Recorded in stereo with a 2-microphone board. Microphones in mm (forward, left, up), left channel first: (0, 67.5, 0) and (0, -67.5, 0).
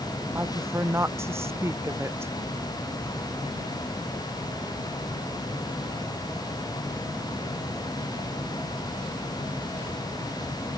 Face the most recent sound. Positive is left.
turn(degrees=-20)  # may be behind; listen again after turning